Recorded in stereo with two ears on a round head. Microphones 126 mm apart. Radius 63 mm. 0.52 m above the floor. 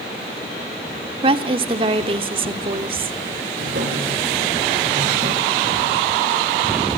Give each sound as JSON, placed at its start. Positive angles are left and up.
{"t": 1.2, "sound": "a woman speaking", "side_deg": -40, "distance_m": 1.2}
{"t": 3.6, "sound": "a drawer", "side_deg": -70, "distance_m": 8.5}